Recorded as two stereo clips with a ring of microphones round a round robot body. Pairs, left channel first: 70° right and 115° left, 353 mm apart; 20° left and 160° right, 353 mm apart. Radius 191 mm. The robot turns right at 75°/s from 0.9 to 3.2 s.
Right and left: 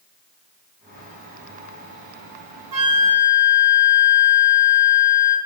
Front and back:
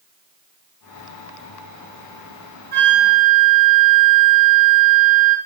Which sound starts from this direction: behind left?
A flute, at 2.7 s.